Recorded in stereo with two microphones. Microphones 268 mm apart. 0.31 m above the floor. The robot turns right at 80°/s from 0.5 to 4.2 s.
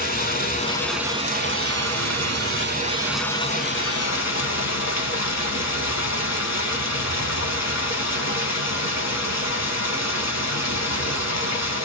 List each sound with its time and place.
0.0 s running water: 145° left, 0.8 m; by 11.8 s 80° left, 0.8 m